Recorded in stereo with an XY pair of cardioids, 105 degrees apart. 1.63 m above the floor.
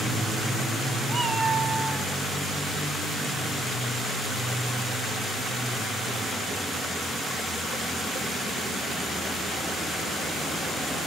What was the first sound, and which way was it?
A cat meowing, 40° right.